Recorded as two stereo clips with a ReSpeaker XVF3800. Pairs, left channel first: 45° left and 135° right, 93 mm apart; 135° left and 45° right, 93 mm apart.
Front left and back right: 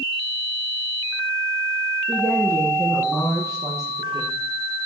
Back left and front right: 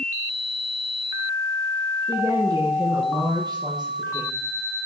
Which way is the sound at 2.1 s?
90° right.